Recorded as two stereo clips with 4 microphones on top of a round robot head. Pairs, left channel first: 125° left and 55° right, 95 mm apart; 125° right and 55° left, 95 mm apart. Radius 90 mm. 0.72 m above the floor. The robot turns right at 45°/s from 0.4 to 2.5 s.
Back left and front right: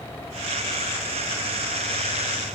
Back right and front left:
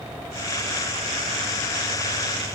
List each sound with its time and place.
Only background noise.